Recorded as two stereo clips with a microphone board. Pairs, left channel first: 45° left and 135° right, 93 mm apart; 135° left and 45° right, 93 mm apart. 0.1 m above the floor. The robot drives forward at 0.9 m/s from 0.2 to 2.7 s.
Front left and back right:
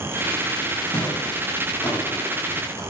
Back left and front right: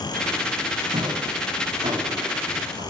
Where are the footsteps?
25° right, 7.5 m; by 2.8 s 20° right, 6 m.